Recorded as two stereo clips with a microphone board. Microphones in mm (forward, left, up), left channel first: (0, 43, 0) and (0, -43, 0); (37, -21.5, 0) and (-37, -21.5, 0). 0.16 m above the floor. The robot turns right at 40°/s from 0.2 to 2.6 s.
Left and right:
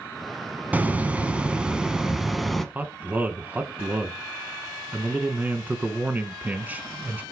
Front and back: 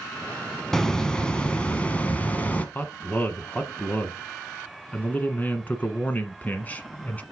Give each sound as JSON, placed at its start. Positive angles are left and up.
{"t": 0.7, "sound": "a hiss", "azimuth_deg": -70, "distance_m": 0.9}
{"t": 2.8, "sound": "a man speaking", "azimuth_deg": -45, "distance_m": 1.1}